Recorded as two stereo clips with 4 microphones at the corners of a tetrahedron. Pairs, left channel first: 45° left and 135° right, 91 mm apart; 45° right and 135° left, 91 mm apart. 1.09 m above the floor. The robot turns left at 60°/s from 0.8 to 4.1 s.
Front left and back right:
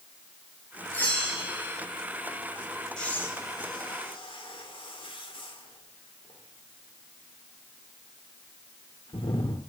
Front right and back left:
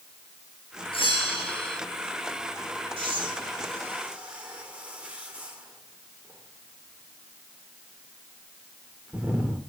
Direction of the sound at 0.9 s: 25° right.